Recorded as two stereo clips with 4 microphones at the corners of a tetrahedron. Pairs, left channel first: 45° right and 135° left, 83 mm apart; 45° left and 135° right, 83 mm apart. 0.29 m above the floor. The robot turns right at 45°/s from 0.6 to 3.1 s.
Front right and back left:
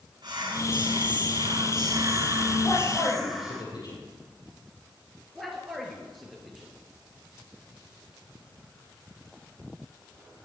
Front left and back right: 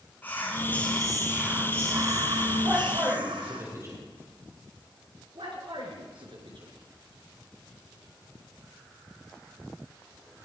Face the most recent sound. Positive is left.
turn(degrees=-135)